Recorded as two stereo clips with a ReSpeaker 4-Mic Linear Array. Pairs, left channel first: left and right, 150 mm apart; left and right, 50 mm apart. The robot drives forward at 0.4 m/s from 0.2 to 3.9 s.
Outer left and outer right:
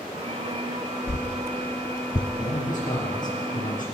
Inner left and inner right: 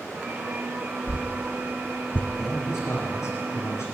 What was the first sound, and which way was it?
A whoosh, 50° left (ahead or behind).